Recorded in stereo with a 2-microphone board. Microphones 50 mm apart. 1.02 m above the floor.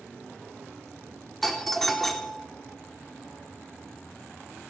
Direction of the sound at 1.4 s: 5° left (ahead or behind).